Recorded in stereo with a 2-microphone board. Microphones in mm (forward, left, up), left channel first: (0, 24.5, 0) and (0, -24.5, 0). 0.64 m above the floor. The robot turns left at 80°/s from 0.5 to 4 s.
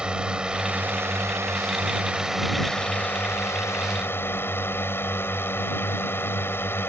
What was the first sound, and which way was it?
A drone, 20° right.